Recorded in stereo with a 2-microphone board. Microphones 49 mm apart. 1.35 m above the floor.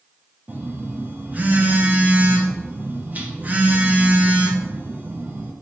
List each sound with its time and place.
0.5 s a phone buzzing: 35° right (ahead or behind), 0.6 m